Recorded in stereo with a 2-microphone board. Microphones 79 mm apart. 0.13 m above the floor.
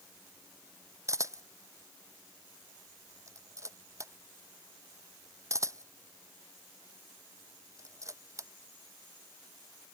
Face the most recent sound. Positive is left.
turn(degrees=-40)  # may be behind; listen again after turning